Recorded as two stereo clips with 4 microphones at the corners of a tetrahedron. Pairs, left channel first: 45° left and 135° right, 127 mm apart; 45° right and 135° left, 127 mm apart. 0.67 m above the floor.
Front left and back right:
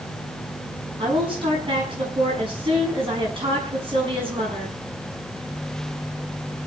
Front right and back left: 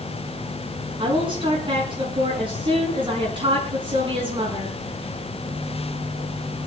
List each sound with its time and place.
1.0 s a woman speaking: straight behind, 6.5 m